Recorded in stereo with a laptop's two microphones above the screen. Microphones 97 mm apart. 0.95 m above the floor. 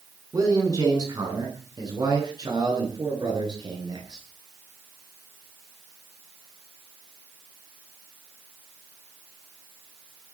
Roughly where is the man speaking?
Right.